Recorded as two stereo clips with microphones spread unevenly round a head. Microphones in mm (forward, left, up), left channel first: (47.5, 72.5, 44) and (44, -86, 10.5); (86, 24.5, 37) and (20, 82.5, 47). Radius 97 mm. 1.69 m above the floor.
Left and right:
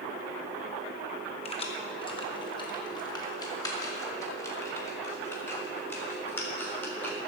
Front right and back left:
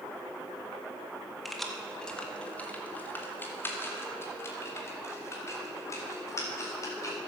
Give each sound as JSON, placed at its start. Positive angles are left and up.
{"t": 1.4, "sound": "keys jangling", "azimuth_deg": 55, "distance_m": 1.5}